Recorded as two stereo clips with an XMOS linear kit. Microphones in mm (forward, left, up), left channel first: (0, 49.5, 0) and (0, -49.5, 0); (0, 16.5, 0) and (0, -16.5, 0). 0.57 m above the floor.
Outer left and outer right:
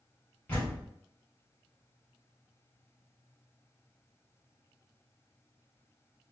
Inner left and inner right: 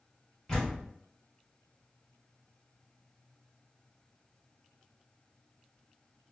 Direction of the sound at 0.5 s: 15° left (ahead or behind).